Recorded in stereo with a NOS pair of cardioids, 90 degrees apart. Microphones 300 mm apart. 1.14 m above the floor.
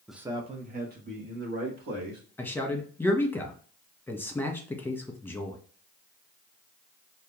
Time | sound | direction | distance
0.1 | a man speaking | straight ahead | 0.8 m
2.4 | a man speaking | 10° left | 1.5 m